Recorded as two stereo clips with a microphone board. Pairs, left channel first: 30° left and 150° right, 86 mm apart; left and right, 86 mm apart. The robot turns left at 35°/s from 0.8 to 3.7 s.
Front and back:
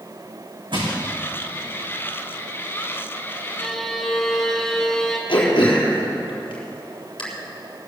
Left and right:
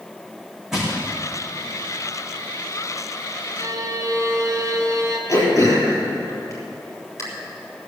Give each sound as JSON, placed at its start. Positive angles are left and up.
{"t": 0.7, "sound": "crushing", "azimuth_deg": -175, "distance_m": 5.0}
{"t": 3.6, "sound": "a violin", "azimuth_deg": -45, "distance_m": 2.0}
{"t": 5.3, "sound": "throat clearing", "azimuth_deg": 40, "distance_m": 3.5}